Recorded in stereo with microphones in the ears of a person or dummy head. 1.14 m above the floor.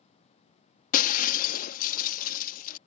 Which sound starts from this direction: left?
Breaking glass, at 0.9 s.